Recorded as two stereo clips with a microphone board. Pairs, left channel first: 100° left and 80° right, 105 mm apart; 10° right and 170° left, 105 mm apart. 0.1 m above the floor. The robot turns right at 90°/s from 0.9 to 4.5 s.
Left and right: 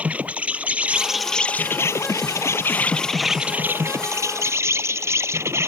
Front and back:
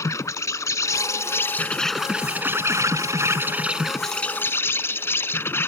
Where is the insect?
15° right; by 5.7 s 50° right.